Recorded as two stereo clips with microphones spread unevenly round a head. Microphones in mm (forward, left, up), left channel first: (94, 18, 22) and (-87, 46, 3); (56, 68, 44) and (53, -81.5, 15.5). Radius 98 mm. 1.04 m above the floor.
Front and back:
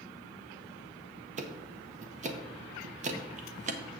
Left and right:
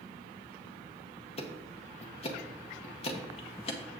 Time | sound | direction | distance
1.4 | ticking | 140° left | 0.9 m